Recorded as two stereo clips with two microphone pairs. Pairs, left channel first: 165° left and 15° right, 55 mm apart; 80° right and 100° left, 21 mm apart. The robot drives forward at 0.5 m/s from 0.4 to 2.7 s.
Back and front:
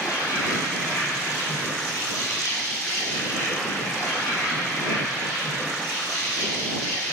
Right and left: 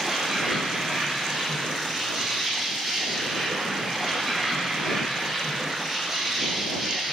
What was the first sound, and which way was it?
An insect, 165° left.